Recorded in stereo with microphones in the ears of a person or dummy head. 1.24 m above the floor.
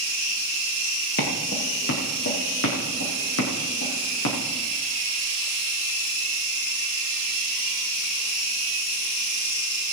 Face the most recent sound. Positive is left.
turn(degrees=70)  # may be behind; listen again after turning